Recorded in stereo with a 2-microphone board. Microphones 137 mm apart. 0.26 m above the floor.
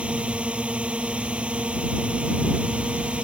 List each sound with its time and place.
0.0 s a drone: 10° right (ahead or behind)